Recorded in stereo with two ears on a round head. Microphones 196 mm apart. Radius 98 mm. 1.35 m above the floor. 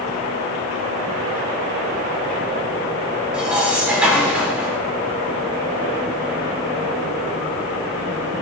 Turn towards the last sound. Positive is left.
turn(degrees=-5)  # may be behind; listen again after turning